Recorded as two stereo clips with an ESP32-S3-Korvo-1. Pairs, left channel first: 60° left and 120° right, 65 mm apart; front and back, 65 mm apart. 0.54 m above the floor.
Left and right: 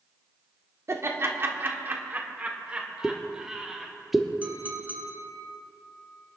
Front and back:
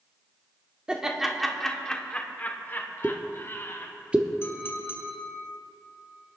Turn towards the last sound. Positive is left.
turn(degrees=-55)